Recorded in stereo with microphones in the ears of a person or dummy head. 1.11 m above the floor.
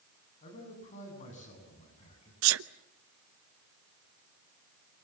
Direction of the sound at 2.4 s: 75° right (ahead or behind).